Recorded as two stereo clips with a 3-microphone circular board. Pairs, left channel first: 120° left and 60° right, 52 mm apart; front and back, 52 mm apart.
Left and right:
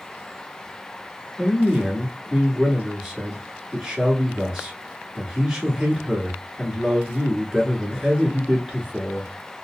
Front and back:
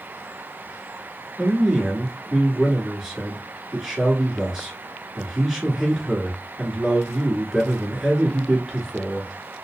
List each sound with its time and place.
1.4 s a man speaking: 115° right, 1.2 m